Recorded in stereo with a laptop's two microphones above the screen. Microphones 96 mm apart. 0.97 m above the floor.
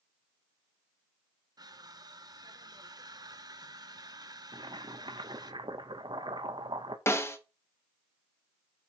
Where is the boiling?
55° right (ahead or behind), 0.8 m.